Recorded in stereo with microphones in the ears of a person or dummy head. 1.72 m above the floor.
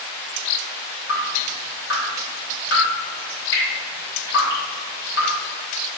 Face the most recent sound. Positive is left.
turn(degrees=80)